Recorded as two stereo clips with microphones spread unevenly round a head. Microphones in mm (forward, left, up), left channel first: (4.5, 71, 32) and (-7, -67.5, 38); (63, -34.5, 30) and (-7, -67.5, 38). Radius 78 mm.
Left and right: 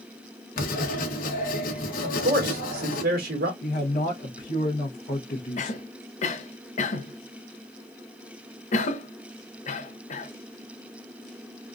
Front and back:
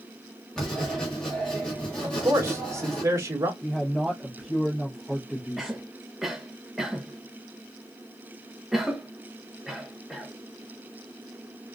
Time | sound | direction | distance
0.6 | writing | 110° left | 1.1 m
2.0 | a man speaking | 100° right | 1.7 m
3.6 | a man speaking | 120° left | 0.9 m
5.6 | a cough | 115° left | 0.8 m